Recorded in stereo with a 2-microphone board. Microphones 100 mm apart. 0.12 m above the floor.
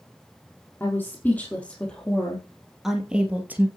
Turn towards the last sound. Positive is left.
turn(degrees=-20)  # may be behind; listen again after turning